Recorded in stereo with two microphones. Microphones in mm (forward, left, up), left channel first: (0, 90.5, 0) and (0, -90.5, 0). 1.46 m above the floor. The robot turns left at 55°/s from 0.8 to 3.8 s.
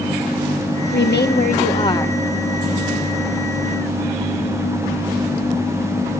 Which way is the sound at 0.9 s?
80° left.